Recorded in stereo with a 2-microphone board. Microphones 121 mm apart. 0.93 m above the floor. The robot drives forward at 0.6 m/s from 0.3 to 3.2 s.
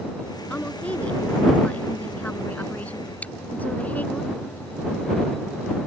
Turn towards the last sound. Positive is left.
turn(degrees=10)  # may be behind; listen again after turning